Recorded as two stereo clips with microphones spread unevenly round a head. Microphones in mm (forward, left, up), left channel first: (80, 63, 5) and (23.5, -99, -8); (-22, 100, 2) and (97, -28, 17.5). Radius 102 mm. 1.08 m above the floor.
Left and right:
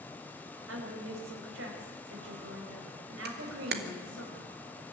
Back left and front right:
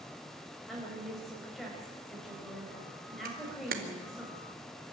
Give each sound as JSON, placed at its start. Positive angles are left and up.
{"t": 0.7, "sound": "a woman speaking", "azimuth_deg": -140, "distance_m": 4.5}
{"t": 3.2, "sound": "a camera shutter", "azimuth_deg": -95, "distance_m": 1.7}